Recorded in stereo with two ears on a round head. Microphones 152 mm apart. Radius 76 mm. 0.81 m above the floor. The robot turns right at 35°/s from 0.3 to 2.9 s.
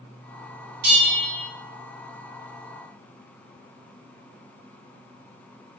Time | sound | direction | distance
0.8 | a bell | 70° right (ahead or behind) | 1.6 m